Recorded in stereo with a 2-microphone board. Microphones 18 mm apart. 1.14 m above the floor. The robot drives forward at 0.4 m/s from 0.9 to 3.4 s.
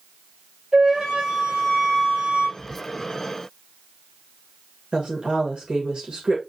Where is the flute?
75° right (ahead or behind), 4 m; by 2.5 s 85° right, 4 m.